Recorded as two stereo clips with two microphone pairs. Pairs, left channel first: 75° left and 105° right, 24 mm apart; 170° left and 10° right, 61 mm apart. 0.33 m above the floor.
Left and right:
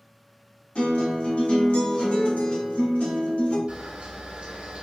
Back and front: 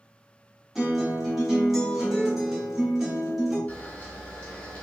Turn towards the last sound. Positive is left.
turn(degrees=-125)